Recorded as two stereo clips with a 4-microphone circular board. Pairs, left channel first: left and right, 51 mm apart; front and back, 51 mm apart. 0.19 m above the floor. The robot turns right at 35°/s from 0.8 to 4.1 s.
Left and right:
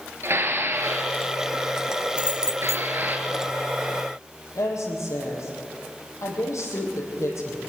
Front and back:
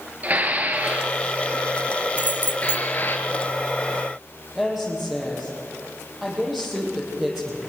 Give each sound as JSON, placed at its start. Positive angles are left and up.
{"t": 0.2, "sound": "dishes clattering", "azimuth_deg": -125, "distance_m": 2.5}
{"t": 2.2, "sound": "keys jangling", "azimuth_deg": -30, "distance_m": 1.2}
{"t": 4.5, "sound": "a woman speaking", "azimuth_deg": 95, "distance_m": 6.5}